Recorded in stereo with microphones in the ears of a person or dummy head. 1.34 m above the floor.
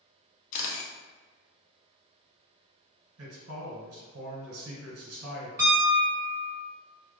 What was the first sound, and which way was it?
A camera shutter, 45° left (ahead or behind).